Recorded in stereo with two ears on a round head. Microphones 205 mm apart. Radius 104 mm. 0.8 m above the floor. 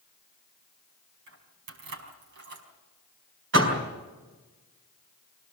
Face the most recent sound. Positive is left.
turn(degrees=-55)  # may be behind; listen again after turning